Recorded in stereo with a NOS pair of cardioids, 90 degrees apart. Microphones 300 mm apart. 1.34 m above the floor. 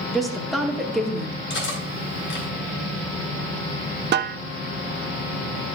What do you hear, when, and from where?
0.1 s a woman speaking: straight ahead, 2.0 m
1.5 s cutlery clinking: 40° left, 4.5 m
4.1 s a snare drum: 35° right, 0.5 m